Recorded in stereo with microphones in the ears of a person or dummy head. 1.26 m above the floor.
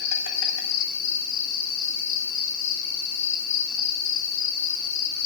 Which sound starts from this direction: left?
An insect, at 0.0 s.